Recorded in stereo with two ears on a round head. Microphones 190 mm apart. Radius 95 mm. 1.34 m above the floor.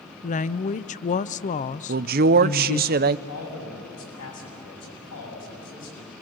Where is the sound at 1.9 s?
45° right (ahead or behind), 0.6 m.